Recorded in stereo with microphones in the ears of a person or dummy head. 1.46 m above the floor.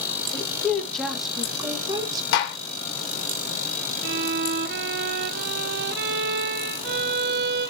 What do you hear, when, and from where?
0.3 s a woman speaking: 10° left (ahead or behind), 2 m; by 2.2 s 25° right (ahead or behind), 1.6 m
2.3 s a gunshot: 70° left (ahead or behind), 2.5 m
4.0 s a violin: 60° right (ahead or behind), 0.7 m